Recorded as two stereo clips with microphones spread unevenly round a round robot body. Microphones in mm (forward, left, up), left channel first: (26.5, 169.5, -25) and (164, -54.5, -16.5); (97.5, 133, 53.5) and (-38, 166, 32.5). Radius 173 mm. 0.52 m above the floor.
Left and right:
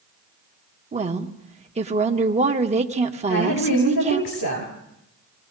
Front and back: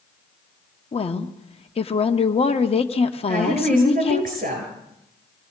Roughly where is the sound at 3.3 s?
Behind left.